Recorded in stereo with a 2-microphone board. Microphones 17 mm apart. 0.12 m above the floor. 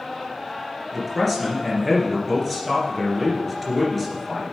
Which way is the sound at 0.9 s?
5° left (ahead or behind).